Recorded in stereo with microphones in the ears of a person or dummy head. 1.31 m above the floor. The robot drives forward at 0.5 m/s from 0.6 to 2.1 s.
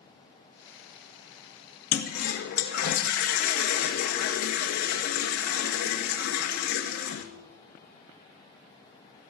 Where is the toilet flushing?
50° left (ahead or behind), 1.5 m; by 7.2 s 45° left (ahead or behind), 1.6 m.